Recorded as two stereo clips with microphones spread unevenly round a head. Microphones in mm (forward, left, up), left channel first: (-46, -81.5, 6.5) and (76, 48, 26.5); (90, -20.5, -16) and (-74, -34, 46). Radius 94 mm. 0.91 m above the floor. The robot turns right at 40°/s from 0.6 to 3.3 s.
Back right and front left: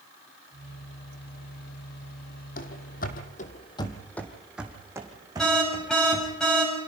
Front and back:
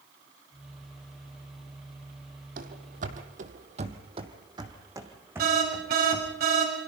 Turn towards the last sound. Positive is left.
turn(degrees=140)